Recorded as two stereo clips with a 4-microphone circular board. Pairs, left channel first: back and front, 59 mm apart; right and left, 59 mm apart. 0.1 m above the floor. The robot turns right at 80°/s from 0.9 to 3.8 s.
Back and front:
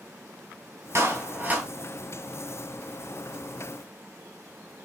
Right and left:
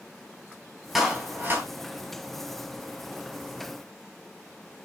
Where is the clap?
5° left, 1.7 m; by 1.7 s 65° left, 1.7 m.